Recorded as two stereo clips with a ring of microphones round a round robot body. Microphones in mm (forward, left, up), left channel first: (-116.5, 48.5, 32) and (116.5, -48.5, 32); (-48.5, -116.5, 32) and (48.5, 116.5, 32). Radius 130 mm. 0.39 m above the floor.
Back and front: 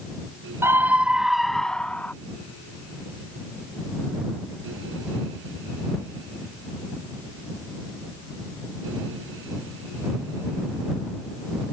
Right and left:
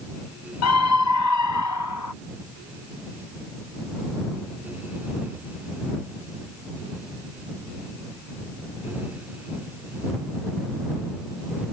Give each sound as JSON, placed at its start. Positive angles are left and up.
{"t": 0.6, "sound": "a scream", "azimuth_deg": -100}